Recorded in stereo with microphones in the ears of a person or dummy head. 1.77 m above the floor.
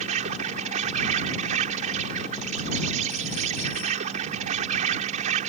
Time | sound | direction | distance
0.0 | an insect | 45° right (ahead or behind) | ?